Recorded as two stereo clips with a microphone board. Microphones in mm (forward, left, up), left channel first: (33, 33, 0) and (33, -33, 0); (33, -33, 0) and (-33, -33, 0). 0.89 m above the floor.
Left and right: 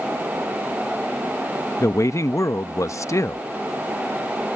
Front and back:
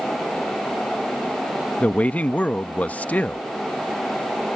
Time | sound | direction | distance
1.8 | a man speaking | 65° left | ?